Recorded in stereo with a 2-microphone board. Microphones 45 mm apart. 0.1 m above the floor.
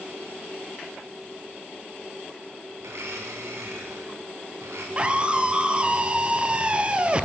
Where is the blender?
70° right (ahead or behind), 7 m.